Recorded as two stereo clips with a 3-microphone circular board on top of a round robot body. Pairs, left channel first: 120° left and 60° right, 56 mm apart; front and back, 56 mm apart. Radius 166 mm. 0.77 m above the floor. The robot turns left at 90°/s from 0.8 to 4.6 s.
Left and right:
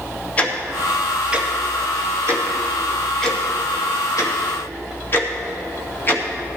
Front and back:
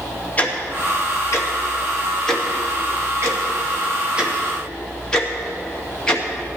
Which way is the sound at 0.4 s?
55° left.